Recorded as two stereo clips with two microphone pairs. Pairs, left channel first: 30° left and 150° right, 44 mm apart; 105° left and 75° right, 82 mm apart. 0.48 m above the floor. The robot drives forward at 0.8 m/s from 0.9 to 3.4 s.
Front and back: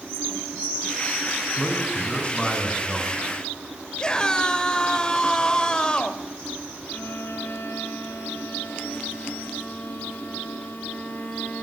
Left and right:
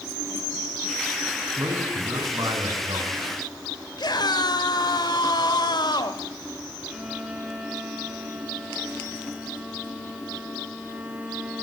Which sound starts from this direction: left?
A scream, at 4.0 s.